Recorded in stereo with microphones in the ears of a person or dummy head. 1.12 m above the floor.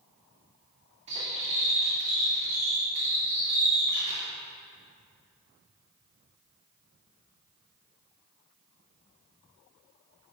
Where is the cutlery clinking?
30° right (ahead or behind), 1.4 m.